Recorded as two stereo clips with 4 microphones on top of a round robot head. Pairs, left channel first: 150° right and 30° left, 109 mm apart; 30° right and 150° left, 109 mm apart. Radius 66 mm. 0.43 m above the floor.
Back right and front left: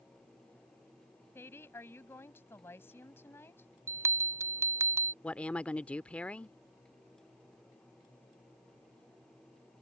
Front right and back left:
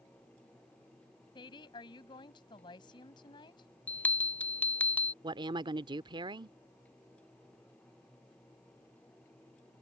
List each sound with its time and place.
1.4 s a woman speaking: 80° right
3.9 s a bell: 25° left
5.2 s a woman speaking: 135° left